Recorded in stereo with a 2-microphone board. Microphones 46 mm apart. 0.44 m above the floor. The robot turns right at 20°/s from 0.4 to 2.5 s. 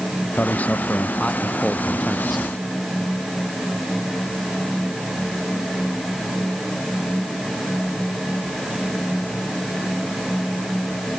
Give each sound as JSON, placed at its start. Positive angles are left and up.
{"t": 0.4, "sound": "a man speaking", "azimuth_deg": 140}